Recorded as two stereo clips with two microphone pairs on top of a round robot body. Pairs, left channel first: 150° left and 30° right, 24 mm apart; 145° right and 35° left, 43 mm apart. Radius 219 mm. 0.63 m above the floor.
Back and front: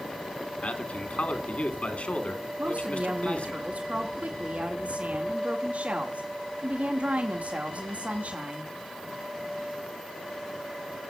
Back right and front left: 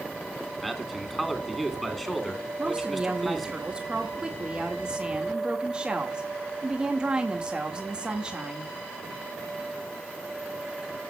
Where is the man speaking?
130° left, 3 m.